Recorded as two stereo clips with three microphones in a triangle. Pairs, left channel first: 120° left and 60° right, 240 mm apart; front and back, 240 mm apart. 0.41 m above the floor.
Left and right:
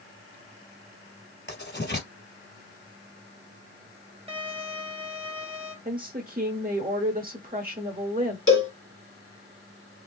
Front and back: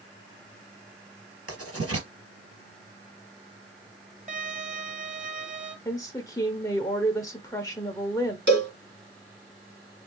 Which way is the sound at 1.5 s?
160° left.